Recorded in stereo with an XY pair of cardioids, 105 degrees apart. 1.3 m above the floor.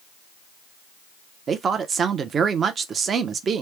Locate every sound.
1.5 s a woman speaking: 45° right, 0.8 m